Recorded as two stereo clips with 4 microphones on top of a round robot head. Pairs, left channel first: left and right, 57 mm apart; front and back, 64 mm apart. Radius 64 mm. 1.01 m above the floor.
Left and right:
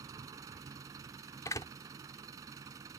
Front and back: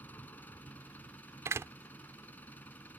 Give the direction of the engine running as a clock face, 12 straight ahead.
2 o'clock.